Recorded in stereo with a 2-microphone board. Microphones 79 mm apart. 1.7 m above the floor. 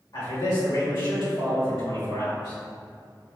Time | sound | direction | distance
0.1 | a man speaking | 75° left (ahead or behind) | 1.6 m